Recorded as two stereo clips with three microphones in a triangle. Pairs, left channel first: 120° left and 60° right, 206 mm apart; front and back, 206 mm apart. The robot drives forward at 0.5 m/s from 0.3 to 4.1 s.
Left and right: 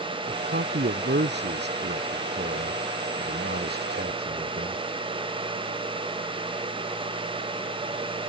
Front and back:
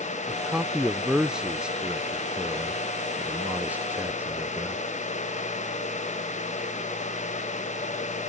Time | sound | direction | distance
0.3 | a man speaking | 90° right | ?